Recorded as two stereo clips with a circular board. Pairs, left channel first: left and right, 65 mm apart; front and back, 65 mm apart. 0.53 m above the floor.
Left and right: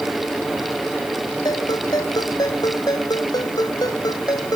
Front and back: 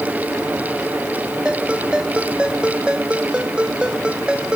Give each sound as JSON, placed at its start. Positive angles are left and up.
{"t": 1.4, "sound": "a ringtone", "azimuth_deg": 105}